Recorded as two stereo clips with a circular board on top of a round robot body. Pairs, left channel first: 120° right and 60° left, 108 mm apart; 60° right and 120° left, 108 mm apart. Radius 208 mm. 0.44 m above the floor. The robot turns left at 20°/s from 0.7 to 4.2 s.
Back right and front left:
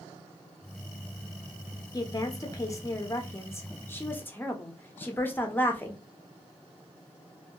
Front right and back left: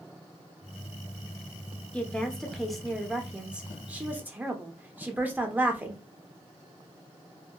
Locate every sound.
1.9 s a woman speaking: 135° right, 0.8 m; by 6.0 s straight behind, 0.8 m